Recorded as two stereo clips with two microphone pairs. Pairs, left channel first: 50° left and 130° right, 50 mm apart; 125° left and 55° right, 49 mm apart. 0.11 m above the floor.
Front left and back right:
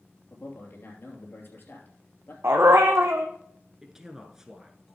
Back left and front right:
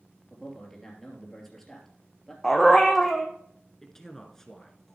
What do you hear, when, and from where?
0.3 s a man speaking: 45° left, 2.5 m
2.4 s a dog barking: 150° right, 1.3 m
3.8 s a man speaking: straight behind, 1.1 m